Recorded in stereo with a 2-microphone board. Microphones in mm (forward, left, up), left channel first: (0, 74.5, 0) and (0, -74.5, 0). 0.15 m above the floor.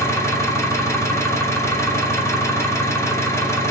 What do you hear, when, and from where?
0.0 s an engine running: 20° left (ahead or behind), 0.8 m